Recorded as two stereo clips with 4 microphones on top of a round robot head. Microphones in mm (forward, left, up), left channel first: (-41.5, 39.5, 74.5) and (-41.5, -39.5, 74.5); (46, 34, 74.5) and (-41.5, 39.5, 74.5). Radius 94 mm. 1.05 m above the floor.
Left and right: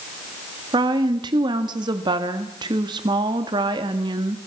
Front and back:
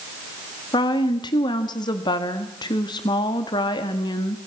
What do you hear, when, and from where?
0.7 s a woman speaking: 50° right, 1.6 m